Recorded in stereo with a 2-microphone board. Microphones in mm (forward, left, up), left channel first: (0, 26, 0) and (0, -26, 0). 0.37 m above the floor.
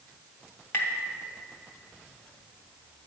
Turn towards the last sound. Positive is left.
turn(degrees=55)  # may be behind; listen again after turning